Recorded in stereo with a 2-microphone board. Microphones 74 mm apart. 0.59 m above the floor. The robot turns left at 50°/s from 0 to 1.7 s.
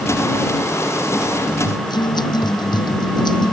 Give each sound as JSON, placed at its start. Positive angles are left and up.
{"t": 1.6, "sound": "a guitar", "side_deg": 75}